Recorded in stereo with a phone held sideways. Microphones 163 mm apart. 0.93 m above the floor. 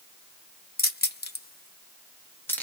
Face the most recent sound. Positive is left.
turn(degrees=10)  # may be behind; listen again after turning